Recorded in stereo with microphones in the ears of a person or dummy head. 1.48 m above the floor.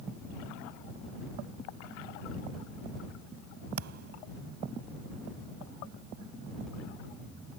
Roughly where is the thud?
Right.